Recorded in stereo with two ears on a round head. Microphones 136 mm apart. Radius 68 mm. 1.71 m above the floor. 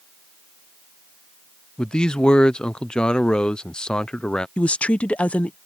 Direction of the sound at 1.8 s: 5° left (ahead or behind).